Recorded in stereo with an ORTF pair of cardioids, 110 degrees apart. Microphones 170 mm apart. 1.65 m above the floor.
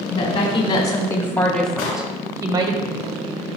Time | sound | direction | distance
0.1 | a woman speaking | 50° left | 1.3 m
1.8 | an explosion | 70° left | 2.5 m